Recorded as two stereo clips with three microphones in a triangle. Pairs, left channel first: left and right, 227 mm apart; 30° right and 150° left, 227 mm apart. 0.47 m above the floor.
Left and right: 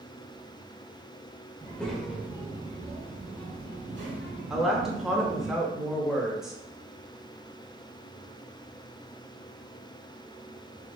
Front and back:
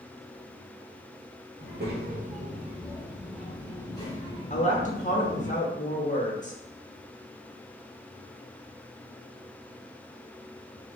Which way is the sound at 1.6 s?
170° left.